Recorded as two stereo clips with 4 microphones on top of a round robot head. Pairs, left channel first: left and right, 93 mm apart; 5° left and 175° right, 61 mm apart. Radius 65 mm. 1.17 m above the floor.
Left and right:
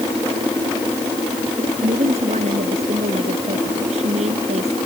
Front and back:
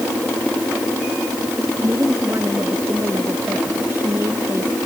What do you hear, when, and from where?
1.8 s a woman speaking: 110° right